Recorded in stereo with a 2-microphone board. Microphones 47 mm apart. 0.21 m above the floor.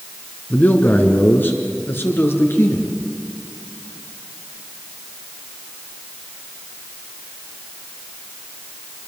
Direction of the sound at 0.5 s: 40° left (ahead or behind).